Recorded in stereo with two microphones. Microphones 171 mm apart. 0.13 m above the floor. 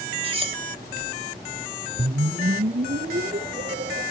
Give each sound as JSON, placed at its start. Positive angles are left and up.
{"t": 0.2, "sound": "cutlery clinking", "side_deg": -35, "distance_m": 1.1}
{"t": 2.0, "sound": "a whoosh", "side_deg": -70, "distance_m": 0.8}